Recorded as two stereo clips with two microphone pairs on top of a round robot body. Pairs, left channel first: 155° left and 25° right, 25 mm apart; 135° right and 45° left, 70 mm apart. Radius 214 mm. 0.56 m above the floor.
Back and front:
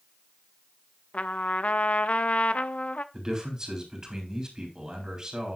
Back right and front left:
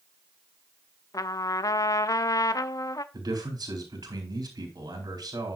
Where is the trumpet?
170° right, 0.5 m.